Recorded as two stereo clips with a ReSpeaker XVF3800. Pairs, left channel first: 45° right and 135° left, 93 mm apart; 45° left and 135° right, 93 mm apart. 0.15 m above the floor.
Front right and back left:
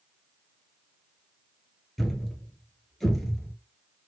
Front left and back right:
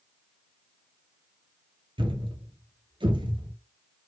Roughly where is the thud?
Behind right.